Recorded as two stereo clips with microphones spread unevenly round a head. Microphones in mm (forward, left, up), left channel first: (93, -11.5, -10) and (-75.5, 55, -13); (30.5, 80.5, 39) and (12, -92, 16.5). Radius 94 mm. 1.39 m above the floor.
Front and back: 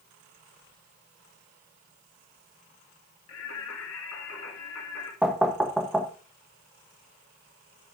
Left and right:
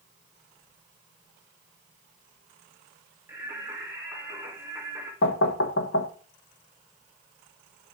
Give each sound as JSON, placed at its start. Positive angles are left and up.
{"t": 3.3, "sound": "singing", "azimuth_deg": -15, "distance_m": 3.0}
{"t": 5.2, "sound": "knocking", "azimuth_deg": 70, "distance_m": 1.0}